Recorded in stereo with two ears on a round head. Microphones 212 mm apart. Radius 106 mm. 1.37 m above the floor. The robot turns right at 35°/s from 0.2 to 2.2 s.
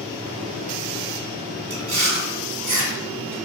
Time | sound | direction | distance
1.7 | chewing | 45° right (ahead or behind) | 1.7 m